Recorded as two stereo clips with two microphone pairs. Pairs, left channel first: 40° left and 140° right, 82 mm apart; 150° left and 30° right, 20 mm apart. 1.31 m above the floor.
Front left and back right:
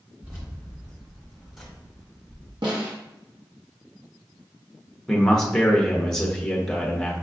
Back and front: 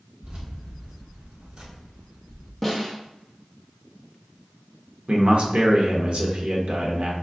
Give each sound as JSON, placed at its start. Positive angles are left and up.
{"t": 0.2, "sound": "keys jangling", "azimuth_deg": -70, "distance_m": 1.8}
{"t": 2.6, "sound": "a snare drum", "azimuth_deg": -120, "distance_m": 1.2}
{"t": 5.1, "sound": "a man speaking", "azimuth_deg": -45, "distance_m": 1.0}